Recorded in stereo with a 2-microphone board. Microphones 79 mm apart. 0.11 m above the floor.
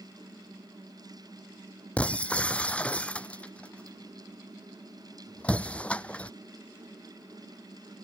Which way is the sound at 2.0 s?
15° left (ahead or behind).